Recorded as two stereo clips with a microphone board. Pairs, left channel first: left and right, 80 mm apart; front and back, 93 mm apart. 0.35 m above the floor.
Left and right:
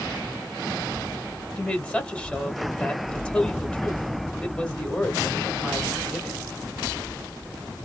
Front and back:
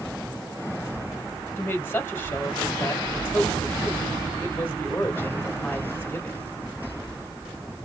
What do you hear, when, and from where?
1.6 s a woman speaking: 30° left, 1.4 m